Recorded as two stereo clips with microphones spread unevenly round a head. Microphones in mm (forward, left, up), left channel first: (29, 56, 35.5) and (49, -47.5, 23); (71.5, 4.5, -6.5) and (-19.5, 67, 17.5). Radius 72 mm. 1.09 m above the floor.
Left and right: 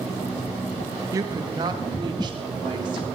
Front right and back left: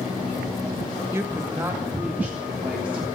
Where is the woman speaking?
140° right, 1.5 m; by 3.0 s 130° right, 3.5 m.